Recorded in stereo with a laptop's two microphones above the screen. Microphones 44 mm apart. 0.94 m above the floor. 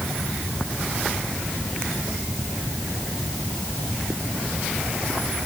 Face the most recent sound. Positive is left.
No sound to turn to.